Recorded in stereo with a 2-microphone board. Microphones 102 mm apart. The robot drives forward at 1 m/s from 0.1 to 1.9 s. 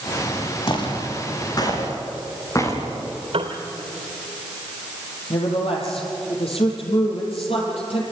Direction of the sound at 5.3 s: 65° left (ahead or behind).